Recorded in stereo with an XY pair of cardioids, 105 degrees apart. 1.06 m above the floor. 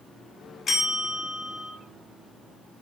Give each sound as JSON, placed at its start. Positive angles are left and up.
{"t": 0.7, "sound": "a bell", "azimuth_deg": 45, "distance_m": 0.9}